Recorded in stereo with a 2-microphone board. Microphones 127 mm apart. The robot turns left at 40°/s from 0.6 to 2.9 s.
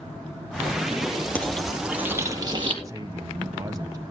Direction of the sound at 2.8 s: 30° right (ahead or behind).